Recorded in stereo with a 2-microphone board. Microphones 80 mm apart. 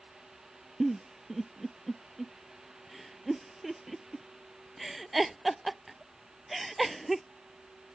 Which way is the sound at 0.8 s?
Centre (ahead or behind).